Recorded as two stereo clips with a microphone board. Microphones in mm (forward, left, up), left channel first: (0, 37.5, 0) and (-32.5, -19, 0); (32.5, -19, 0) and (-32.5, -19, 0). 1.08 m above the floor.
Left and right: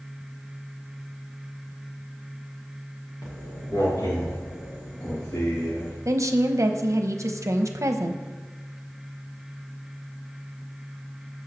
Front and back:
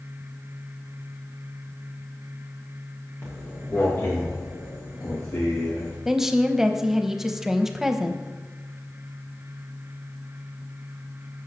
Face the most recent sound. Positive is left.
turn(degrees=-100)